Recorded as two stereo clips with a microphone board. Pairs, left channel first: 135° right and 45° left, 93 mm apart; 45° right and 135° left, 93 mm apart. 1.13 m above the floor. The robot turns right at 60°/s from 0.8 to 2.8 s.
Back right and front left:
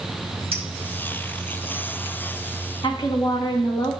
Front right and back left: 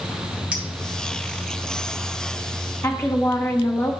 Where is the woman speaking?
100° right, 1.5 m.